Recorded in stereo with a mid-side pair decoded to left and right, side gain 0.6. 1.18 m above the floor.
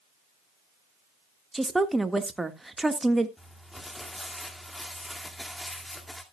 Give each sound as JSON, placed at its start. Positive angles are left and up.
{"t": 1.5, "sound": "a woman speaking", "azimuth_deg": -10, "distance_m": 1.6}
{"t": 3.4, "sound": "crumpling", "azimuth_deg": 10, "distance_m": 2.0}